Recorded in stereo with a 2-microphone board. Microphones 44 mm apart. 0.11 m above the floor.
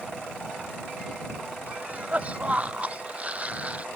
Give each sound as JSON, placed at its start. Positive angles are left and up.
{"t": 1.7, "sound": "a cough", "side_deg": -30}